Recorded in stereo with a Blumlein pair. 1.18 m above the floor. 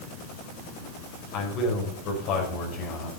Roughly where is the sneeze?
I don't hear a sneeze.